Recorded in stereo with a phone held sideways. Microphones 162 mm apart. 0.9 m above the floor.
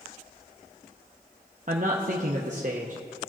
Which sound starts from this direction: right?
A man speaking, at 1.7 s.